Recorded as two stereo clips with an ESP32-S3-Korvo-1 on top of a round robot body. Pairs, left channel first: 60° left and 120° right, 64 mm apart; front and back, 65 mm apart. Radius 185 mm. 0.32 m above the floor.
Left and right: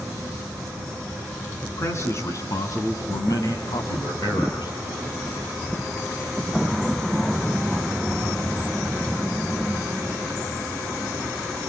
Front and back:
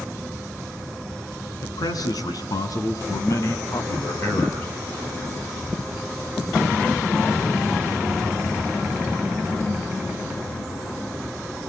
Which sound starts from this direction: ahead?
A man speaking, at 1.6 s.